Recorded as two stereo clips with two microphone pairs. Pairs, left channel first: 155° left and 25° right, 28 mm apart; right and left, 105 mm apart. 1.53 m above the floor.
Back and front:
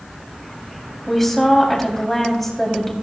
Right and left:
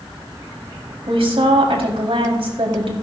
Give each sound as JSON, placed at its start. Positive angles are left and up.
{"t": 1.1, "sound": "a woman speaking", "azimuth_deg": 70, "distance_m": 4.0}